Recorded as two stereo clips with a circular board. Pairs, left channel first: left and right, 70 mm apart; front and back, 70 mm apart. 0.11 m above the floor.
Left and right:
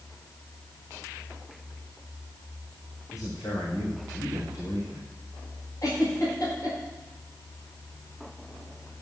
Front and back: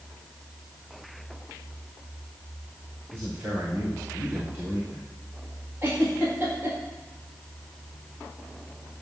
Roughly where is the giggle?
Behind left.